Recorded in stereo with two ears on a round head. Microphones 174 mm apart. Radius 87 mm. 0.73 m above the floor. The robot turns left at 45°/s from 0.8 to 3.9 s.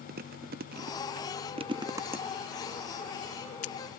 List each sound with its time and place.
0.1 s chewing: 50° right (ahead or behind), 0.5 m; by 3.7 s 40° left (ahead or behind), 0.5 m